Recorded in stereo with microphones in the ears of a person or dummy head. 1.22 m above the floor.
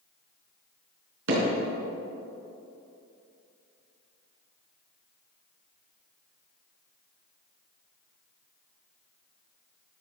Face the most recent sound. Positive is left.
turn(degrees=-75)  # may be behind; listen again after turning